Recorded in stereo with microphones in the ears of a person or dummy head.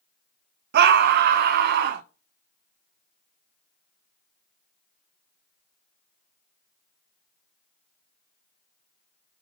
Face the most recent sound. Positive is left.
turn(degrees=-50)  # may be behind; listen again after turning